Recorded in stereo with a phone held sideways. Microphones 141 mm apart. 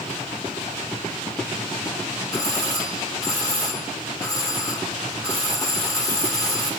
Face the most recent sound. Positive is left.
turn(degrees=25)  # may be behind; listen again after turning